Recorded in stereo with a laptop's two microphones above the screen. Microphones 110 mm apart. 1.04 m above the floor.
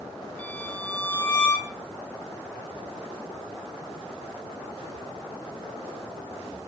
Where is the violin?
15° left (ahead or behind), 3.5 m.